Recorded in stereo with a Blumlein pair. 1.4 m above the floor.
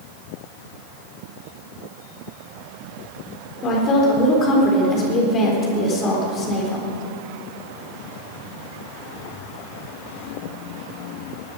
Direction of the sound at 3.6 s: 30° left.